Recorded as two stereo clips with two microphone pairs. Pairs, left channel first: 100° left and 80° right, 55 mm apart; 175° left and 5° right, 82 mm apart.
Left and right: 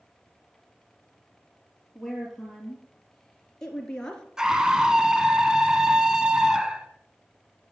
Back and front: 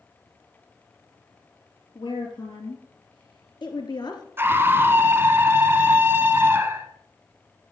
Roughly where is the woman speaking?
Behind.